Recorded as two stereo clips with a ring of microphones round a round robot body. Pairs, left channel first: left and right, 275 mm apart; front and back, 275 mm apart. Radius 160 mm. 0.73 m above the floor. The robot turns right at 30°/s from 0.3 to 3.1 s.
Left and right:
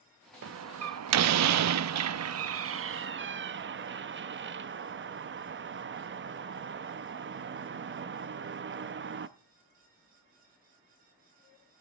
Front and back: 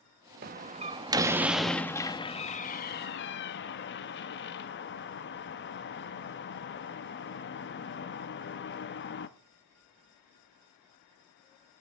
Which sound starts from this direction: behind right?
A door slam, at 0.4 s.